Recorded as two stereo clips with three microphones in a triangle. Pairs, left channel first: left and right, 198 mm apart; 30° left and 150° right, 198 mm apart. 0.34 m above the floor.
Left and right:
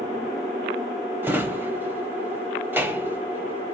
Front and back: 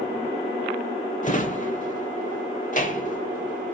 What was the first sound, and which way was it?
A drawer, 15° right.